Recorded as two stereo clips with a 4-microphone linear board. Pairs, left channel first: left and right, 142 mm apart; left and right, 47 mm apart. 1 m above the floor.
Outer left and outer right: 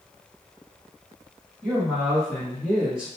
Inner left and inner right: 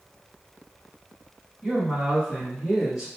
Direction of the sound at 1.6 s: 5° left (ahead or behind).